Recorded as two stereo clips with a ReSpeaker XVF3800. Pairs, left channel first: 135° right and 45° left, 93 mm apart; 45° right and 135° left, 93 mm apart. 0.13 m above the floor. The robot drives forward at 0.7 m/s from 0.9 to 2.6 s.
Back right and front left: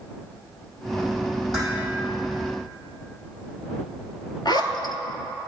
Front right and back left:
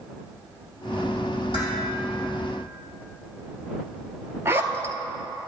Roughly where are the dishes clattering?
Ahead right.